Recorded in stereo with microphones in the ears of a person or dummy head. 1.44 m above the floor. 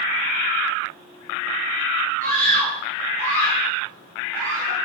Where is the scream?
45° right (ahead or behind), 10 m.